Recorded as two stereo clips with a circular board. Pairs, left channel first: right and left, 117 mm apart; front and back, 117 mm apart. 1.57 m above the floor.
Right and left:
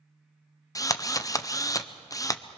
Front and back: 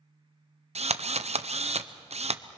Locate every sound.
0.8 s a drill: 150° right, 0.6 m